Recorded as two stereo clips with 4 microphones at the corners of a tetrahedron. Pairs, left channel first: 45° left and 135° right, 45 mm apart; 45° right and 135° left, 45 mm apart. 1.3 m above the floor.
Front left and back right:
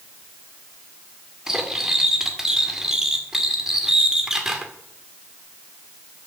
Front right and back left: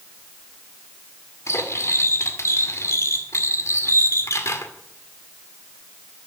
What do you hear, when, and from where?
1.5 s cutlery clinking: 55° right, 1.9 m